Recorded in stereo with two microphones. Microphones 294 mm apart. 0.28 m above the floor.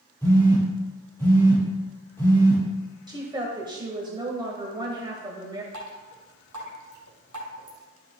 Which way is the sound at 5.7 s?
85° right.